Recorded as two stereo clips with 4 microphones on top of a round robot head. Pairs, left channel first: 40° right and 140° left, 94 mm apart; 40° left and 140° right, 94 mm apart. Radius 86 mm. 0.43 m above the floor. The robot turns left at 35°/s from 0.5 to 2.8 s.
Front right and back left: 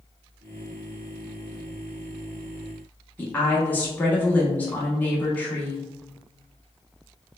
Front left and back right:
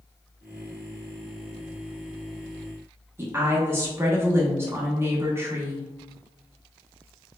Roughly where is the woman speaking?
Right.